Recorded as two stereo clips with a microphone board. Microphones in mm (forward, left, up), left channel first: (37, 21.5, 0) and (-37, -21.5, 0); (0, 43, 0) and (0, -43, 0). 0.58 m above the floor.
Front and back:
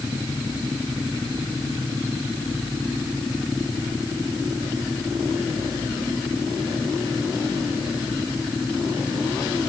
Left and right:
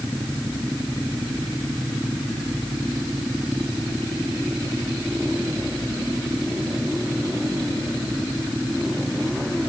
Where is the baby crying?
No baby crying in this recording.